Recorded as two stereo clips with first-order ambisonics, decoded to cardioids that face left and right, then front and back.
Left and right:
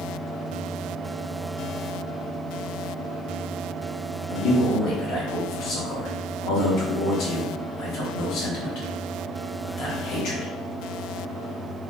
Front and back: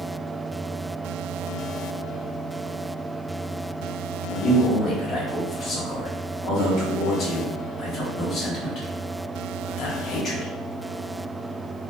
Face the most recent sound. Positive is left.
turn(degrees=50)